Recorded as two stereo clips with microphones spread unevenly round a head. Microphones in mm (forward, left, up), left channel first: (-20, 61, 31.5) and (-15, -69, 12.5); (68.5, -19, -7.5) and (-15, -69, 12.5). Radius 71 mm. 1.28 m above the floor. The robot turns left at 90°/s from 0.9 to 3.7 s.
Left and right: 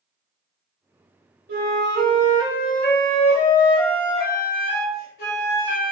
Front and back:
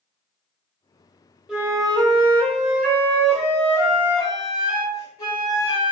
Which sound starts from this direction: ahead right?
A flute, at 1.5 s.